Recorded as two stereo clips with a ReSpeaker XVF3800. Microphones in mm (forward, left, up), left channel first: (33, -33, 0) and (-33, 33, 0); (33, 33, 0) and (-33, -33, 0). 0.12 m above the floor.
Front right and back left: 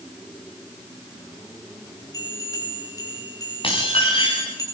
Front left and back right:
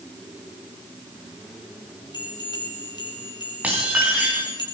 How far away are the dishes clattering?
About 8 m.